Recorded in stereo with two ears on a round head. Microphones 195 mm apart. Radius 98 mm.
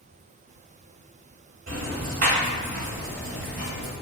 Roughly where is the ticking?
Right.